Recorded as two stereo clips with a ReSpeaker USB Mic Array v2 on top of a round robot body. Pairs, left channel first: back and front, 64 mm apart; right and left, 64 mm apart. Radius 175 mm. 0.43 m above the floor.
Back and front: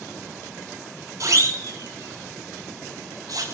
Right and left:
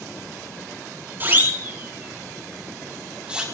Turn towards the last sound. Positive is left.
turn(degrees=15)